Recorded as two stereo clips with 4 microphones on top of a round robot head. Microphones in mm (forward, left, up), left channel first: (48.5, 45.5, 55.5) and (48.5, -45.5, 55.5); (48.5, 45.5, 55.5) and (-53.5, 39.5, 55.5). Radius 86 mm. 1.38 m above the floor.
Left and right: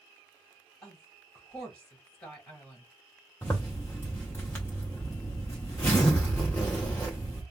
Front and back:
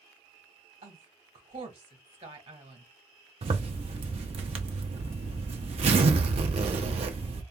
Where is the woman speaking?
175° left, 1.7 m.